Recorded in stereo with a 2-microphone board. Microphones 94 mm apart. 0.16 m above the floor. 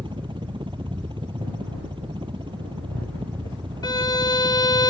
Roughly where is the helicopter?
Right.